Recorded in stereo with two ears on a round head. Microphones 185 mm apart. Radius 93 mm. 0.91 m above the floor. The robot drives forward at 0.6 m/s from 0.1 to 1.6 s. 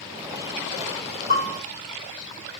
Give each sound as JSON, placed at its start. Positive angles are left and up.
{"t": 1.3, "sound": "a bell", "side_deg": -30, "distance_m": 0.9}